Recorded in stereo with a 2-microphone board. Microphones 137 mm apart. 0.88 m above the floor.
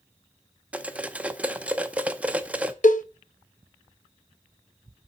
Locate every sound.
0.7 s cutlery clinking: 10° right (ahead or behind), 0.6 m
2.8 s a cowbell: 70° left (ahead or behind), 0.6 m